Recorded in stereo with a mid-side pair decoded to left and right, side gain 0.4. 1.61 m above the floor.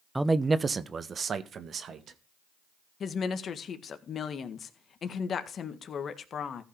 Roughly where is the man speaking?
Ahead.